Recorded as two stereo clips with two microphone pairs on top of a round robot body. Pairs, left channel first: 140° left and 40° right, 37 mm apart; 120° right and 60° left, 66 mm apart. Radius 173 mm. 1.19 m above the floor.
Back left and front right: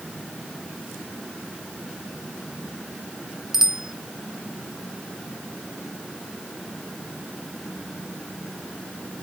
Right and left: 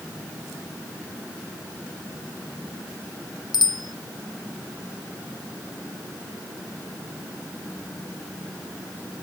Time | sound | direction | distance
3.5 | a bicycle bell | 120° right | ?